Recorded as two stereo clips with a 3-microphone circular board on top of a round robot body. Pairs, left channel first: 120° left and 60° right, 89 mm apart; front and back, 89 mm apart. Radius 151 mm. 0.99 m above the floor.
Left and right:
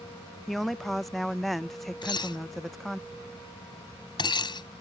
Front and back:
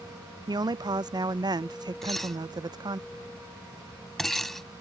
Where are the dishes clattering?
85° left.